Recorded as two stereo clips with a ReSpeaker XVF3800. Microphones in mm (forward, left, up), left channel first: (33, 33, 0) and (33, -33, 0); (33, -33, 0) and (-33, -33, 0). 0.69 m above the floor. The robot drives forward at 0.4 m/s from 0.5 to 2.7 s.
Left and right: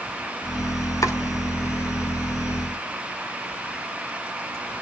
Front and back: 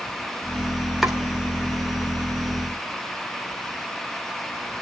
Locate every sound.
1.0 s chopping: 95° left, 2.5 m